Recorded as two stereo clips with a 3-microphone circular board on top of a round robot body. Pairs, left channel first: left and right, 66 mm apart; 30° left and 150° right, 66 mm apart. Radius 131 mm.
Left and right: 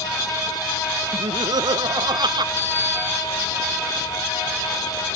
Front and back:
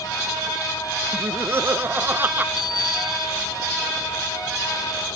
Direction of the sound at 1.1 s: 100° right.